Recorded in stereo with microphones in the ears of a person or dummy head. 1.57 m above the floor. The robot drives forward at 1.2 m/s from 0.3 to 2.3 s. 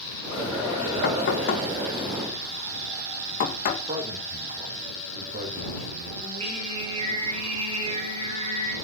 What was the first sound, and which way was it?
Knocking, 65° left (ahead or behind).